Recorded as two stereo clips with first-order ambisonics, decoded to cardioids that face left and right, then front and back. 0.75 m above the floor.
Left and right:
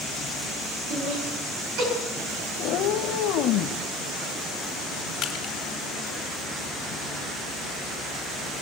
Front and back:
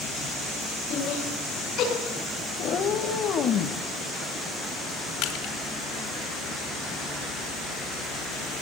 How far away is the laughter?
About 8 m.